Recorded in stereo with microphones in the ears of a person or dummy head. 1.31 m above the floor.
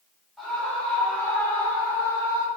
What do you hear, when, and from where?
0.4 s a scream: centre (ahead or behind), 4.5 m; by 2.5 s 15° left (ahead or behind), 3.5 m